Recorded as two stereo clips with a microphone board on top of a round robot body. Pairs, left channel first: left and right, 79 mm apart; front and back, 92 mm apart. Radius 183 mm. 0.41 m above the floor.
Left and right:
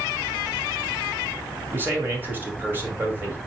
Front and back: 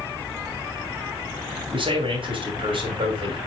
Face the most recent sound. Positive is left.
turn(degrees=-155)